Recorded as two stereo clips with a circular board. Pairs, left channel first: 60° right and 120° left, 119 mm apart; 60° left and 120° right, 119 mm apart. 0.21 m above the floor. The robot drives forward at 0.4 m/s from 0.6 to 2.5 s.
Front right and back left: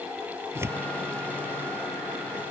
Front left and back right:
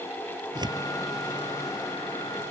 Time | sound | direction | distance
0.6 | tearing paper | 170° right | ?